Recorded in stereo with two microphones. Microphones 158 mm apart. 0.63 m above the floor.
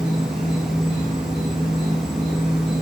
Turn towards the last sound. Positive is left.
turn(degrees=-50)  # may be behind; listen again after turning